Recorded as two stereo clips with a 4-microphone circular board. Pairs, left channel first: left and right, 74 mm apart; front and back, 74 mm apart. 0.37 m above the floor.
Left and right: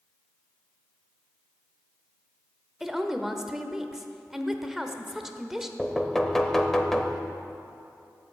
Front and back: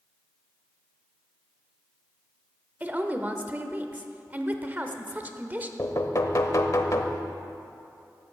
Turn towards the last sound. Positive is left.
turn(degrees=5)